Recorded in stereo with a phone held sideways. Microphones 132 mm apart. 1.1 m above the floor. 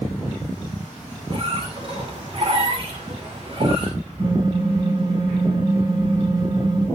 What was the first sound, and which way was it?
A squeak, 50° right (ahead or behind).